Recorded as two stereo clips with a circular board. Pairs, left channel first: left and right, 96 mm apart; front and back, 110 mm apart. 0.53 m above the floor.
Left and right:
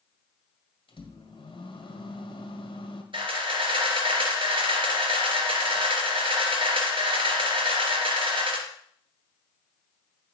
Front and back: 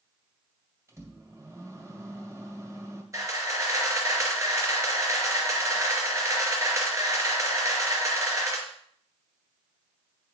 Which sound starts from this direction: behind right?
A camera shutter, at 3.1 s.